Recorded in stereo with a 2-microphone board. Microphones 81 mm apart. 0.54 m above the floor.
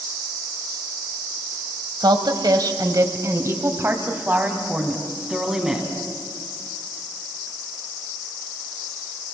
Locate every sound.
2.0 s a woman speaking: 65° right (ahead or behind), 2.5 m; by 5.9 s 5° right (ahead or behind), 4 m